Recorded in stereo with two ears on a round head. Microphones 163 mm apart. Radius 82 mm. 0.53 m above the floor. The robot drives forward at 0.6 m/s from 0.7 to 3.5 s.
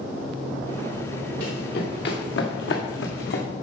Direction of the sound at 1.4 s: 55° left (ahead or behind).